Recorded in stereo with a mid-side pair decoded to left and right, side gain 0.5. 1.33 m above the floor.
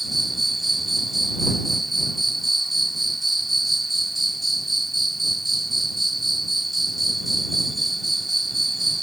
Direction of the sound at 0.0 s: 5° right.